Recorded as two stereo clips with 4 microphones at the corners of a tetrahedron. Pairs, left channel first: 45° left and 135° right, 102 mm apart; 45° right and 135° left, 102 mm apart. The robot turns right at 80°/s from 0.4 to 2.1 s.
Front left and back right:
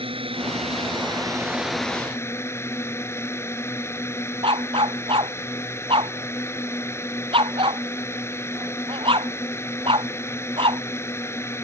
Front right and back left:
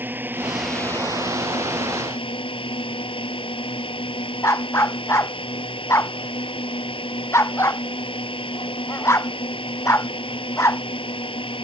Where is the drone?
155° right; by 11.6 s 20° right.